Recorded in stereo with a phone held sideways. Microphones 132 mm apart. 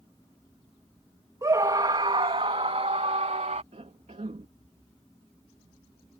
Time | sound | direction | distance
1.4 | a scream | 25° right (ahead or behind) | ?
3.7 | a cough | 60° right (ahead or behind) | ?